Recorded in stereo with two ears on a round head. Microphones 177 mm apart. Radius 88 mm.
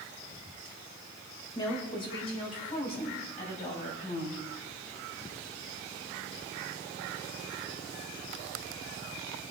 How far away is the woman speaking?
About 3.5 m.